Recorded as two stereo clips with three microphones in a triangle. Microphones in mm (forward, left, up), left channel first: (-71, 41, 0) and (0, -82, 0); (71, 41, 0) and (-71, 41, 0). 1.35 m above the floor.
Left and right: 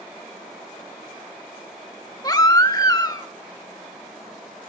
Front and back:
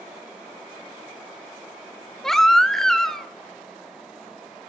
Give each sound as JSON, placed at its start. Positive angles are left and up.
{"t": 2.2, "sound": "a baby crying", "azimuth_deg": 85, "distance_m": 1.1}